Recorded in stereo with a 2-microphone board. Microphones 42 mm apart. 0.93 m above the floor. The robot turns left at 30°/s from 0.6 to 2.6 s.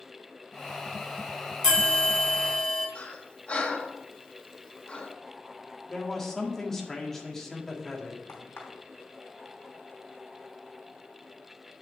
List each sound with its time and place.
1.6 s a bell: 10° left (ahead or behind), 3.5 m; by 2.9 s 15° right (ahead or behind), 3.5 m
3.0 s breathing: 30° left (ahead or behind), 1.2 m
5.9 s a man speaking: 10° left (ahead or behind), 1.7 m
8.3 s a crack: 80° left, 3 m